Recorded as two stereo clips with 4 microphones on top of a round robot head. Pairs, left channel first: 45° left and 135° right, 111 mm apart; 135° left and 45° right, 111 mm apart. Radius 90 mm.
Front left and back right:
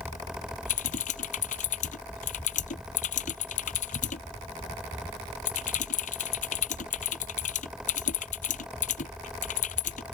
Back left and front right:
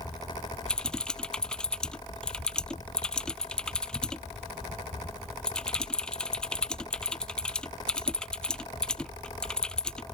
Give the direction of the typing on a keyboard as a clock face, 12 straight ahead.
10 o'clock.